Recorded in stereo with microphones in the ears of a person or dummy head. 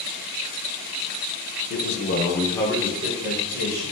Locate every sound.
1.7 s a man speaking: 55° left (ahead or behind), 0.7 m; by 3.9 s 25° right (ahead or behind), 1.3 m